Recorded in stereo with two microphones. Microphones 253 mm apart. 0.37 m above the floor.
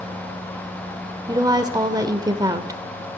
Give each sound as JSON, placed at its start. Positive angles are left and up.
{"t": 1.3, "sound": "a woman speaking", "side_deg": -15, "distance_m": 0.8}